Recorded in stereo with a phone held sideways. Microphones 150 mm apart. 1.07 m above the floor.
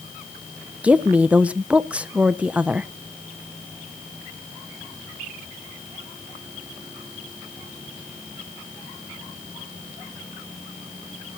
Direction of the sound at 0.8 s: 5° right (ahead or behind).